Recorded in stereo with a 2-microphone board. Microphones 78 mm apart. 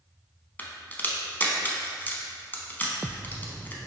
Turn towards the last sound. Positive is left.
turn(degrees=25)  # may be behind; listen again after turning